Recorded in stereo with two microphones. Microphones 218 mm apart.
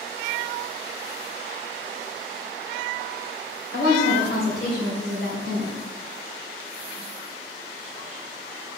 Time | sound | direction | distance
3.7 | a woman speaking | 65° left (ahead or behind) | 2.5 m